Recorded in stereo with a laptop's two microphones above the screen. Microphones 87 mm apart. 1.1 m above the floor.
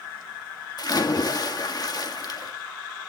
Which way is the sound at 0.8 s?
50° left (ahead or behind).